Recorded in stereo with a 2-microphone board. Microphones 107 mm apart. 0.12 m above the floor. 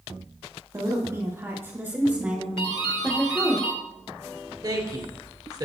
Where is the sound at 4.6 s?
35° right (ahead or behind), 1.9 m.